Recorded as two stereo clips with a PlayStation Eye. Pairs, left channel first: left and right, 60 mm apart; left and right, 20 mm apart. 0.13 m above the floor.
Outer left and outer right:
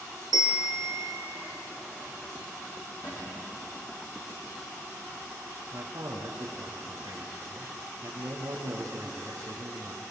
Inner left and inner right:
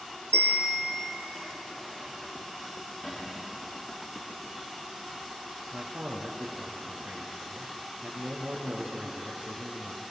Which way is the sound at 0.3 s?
75° left (ahead or behind).